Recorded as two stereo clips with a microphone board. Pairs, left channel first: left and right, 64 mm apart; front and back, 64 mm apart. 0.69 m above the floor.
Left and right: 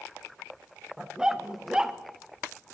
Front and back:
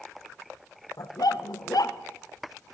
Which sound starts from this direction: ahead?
A dog barking, at 1.0 s.